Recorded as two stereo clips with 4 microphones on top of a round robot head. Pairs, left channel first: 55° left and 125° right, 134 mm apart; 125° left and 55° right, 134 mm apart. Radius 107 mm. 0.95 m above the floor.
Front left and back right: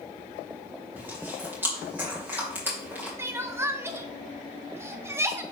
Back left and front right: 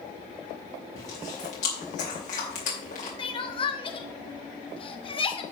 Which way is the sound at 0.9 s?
160° left.